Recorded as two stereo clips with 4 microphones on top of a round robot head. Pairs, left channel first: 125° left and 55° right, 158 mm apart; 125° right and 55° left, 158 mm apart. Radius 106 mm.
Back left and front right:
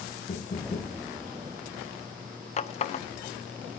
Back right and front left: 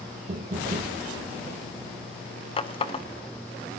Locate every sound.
0.3 s knocking: 90° left, 1.1 m
2.6 s a running tap: 175° left, 0.9 m